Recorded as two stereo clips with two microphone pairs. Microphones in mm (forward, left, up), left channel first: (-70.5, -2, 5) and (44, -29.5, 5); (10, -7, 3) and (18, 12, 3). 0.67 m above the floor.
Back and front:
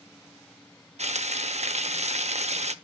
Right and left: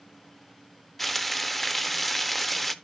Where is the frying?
30° right, 0.6 m.